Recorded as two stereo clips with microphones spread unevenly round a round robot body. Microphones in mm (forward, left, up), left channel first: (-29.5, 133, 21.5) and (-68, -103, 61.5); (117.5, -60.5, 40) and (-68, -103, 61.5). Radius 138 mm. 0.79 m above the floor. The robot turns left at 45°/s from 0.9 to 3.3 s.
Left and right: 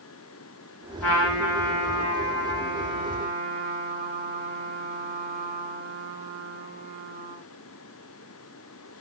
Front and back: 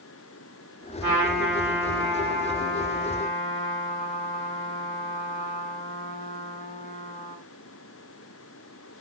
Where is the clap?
I don't hear a clap.